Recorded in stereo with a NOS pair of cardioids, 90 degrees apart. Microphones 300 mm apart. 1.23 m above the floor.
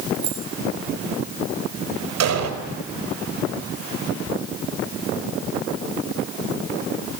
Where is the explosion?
60° right, 4.5 m.